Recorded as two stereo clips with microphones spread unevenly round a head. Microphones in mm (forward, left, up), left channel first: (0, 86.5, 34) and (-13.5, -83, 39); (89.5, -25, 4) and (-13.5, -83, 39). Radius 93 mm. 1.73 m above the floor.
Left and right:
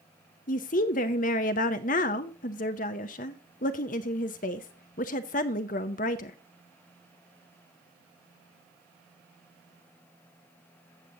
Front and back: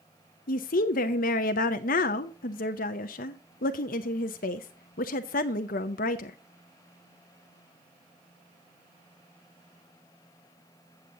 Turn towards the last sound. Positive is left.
turn(degrees=40)